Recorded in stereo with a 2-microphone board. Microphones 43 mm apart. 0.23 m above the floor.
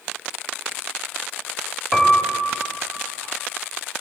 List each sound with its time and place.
1.9 s a piano: 5° right (ahead or behind), 1.4 m